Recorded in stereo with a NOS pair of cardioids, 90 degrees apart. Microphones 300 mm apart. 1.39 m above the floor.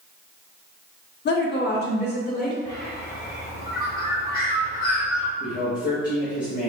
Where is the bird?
50° left, 1.8 m.